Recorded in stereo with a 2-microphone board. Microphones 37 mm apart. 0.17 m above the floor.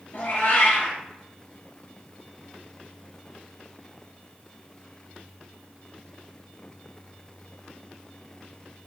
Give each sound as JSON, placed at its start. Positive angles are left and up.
{"t": 0.1, "sound": "a cat meowing", "side_deg": 65, "distance_m": 1.6}